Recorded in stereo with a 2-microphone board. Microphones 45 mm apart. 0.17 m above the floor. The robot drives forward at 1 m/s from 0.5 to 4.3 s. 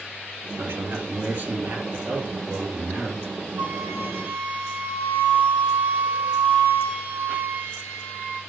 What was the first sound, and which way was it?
A man speaking, 50° right (ahead or behind).